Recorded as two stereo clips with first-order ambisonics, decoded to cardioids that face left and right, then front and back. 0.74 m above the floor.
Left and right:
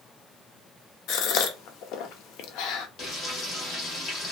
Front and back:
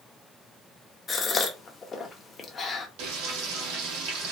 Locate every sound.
1.1 s a gasp: 70° left, 0.5 m
3.0 s frying: 155° left, 1.1 m